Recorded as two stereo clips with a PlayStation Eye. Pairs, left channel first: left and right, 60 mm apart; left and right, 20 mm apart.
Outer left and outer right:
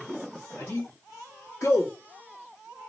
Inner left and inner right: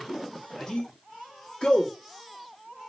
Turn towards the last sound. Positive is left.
turn(degrees=45)  # may be behind; listen again after turning